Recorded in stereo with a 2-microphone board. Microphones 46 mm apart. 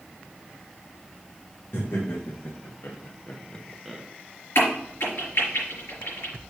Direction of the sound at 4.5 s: 60° left (ahead or behind).